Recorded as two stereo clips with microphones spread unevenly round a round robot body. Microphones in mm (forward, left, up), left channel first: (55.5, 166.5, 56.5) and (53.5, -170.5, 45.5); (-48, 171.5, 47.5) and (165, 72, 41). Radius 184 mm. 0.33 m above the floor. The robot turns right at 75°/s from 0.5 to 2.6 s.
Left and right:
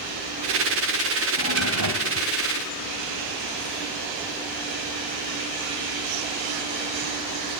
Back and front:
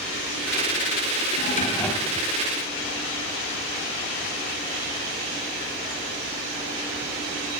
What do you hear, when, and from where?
1.4 s a drawer: 160° right, 1.2 m; by 2.3 s 95° right, 1.2 m